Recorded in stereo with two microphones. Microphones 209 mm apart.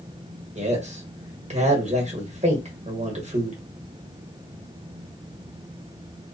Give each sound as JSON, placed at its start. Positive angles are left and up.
{"t": 0.6, "sound": "a man speaking", "side_deg": -35, "distance_m": 1.1}